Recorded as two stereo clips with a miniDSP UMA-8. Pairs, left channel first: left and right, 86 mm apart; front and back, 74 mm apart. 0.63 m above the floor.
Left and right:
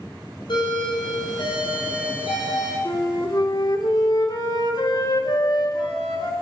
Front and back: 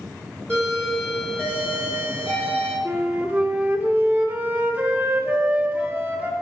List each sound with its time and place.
0.5 s a doorbell: 75° left, 3.5 m
2.9 s a flute: 115° left, 1.2 m